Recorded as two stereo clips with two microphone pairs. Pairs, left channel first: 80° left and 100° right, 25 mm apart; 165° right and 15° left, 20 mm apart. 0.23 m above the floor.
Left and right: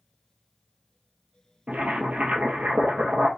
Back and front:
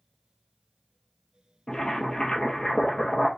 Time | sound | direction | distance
1.7 | boiling | 115° right | 1.6 m